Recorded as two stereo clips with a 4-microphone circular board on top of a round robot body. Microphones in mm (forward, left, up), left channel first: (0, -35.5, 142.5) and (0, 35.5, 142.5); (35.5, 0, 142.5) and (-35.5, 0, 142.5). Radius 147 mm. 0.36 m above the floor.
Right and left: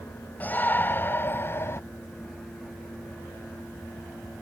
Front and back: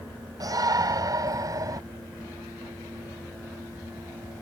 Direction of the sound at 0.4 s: 155° right.